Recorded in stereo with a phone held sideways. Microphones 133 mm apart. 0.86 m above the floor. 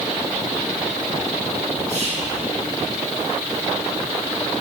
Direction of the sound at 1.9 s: 25° right (ahead or behind).